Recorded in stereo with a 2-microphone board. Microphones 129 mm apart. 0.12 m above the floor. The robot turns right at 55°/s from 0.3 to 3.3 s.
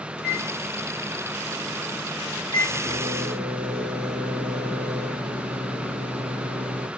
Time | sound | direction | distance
0.2 | a microwave | 10° right | 1.8 m